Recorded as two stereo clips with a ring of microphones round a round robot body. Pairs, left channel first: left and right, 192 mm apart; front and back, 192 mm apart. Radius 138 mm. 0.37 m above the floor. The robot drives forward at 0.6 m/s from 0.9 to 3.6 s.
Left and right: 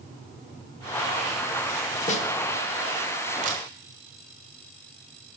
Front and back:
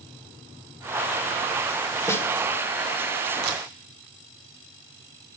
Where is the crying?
I don't hear crying.